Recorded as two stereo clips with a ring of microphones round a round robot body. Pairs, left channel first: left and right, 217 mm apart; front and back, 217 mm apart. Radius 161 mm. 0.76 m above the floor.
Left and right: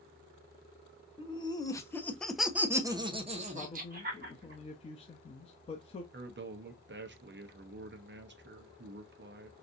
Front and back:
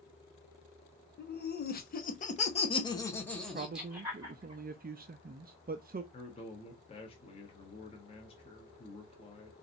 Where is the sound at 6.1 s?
65° right, 0.9 m.